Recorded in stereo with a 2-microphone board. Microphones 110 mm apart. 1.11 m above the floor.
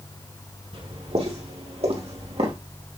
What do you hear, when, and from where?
0.7 s footsteps: 60° right (ahead or behind), 3.5 m; by 2.5 s 70° right (ahead or behind), 3.5 m